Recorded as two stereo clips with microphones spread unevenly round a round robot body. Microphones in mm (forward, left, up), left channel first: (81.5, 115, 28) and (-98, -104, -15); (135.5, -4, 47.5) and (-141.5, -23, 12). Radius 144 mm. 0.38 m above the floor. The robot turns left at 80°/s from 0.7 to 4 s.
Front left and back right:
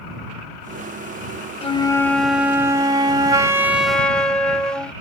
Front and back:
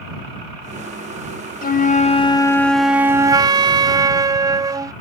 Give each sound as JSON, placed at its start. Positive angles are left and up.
{"t": 1.6, "sound": "a flute", "azimuth_deg": -10}